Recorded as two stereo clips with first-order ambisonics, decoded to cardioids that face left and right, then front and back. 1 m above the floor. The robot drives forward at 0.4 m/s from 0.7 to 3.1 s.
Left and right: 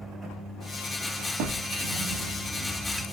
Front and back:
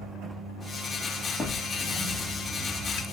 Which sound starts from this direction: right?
A drawer, at 1.4 s.